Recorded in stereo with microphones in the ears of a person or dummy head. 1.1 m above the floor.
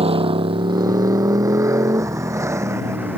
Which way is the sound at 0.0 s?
30° right (ahead or behind).